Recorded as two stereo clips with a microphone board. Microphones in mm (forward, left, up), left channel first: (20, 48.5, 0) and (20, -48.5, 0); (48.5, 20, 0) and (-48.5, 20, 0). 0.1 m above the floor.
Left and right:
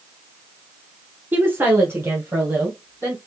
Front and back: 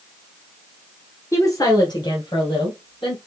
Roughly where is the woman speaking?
Ahead right.